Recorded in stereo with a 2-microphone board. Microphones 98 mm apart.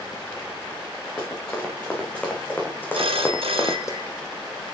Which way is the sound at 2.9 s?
75° right (ahead or behind).